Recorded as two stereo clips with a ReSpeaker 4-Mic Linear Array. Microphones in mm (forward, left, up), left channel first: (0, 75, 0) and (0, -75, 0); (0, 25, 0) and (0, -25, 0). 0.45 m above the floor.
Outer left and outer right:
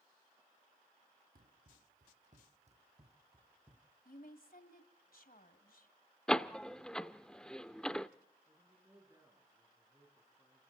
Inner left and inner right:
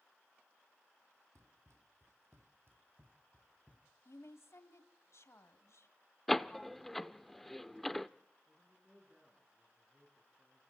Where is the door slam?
5° left (ahead or behind), 0.6 m.